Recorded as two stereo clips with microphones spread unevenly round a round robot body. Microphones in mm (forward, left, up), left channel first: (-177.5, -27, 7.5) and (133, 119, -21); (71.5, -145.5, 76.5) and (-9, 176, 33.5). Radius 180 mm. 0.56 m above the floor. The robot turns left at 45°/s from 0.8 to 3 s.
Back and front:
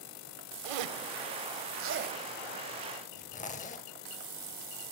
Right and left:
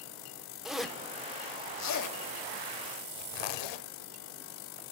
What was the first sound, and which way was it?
A zipper, 15° left.